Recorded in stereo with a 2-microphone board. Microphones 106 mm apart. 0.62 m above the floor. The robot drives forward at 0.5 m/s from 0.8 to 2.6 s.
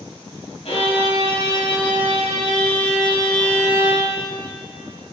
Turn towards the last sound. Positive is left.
turn(degrees=50)  # may be behind; listen again after turning